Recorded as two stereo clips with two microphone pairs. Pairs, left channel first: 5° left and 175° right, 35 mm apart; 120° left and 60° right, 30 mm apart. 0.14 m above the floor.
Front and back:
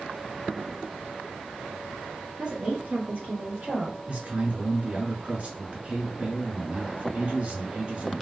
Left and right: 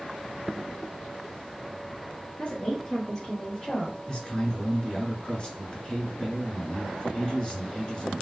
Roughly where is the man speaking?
Behind.